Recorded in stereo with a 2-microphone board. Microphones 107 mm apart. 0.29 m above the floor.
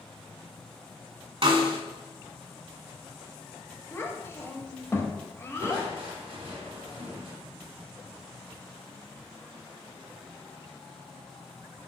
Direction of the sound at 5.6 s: 60° right (ahead or behind).